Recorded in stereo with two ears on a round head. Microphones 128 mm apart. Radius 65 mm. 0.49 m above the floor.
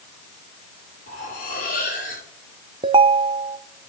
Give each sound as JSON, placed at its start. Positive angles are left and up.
{"t": 1.1, "sound": "cutlery clinking", "side_deg": 75, "distance_m": 7.0}
{"t": 2.8, "sound": "a ringtone", "side_deg": -35, "distance_m": 0.6}